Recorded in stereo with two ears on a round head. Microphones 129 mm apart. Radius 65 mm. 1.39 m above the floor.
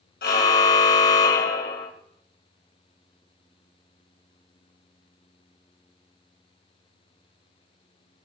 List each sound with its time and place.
0.2 s a car horn: 75° left (ahead or behind), 3 m